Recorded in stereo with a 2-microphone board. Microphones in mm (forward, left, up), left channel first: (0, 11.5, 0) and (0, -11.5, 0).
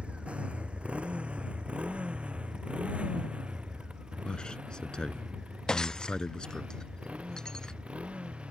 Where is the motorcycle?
70° right (ahead or behind).